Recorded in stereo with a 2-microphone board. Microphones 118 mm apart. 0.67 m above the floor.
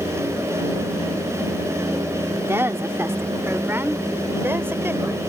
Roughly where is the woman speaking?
Right.